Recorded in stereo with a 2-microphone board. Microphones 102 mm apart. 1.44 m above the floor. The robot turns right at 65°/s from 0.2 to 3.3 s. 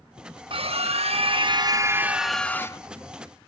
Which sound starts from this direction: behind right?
A scream, at 0.5 s.